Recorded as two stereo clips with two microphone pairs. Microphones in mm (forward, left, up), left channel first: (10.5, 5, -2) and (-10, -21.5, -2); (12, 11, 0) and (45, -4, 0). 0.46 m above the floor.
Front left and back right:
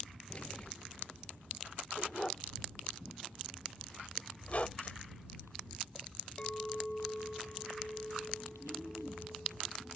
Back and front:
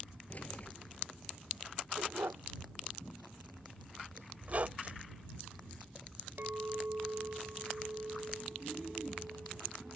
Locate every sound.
0.3 s keys jangling: 105° left
2.0 s a dog barking: 20° right
4.4 s a squeak: 15° left
6.4 s a clink: 10° right